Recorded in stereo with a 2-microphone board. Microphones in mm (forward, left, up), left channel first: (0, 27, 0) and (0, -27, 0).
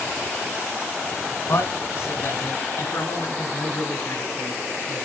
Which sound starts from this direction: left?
A man speaking, at 1.5 s.